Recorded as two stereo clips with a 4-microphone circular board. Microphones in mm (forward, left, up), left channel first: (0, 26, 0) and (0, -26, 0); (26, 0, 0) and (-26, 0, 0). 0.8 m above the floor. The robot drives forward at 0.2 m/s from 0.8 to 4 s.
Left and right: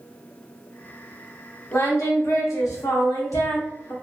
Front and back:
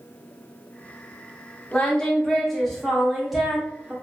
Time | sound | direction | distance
1.7 | singing | 70° left | 0.8 m